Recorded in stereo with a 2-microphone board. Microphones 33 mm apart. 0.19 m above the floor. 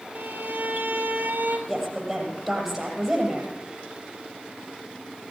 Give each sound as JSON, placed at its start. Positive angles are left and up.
{"t": 0.1, "sound": "a violin", "side_deg": -75, "distance_m": 1.8}
{"t": 1.7, "sound": "a woman speaking", "side_deg": -5, "distance_m": 5.5}